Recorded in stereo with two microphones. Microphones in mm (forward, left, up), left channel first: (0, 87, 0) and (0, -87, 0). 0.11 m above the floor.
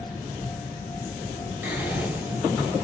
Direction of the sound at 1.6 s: 10° right (ahead or behind).